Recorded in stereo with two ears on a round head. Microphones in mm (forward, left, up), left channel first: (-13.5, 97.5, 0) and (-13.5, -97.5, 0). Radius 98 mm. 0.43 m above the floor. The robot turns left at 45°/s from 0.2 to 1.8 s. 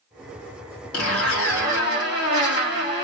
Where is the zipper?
95° left, 3.5 m; by 3.0 s 55° left, 3.5 m.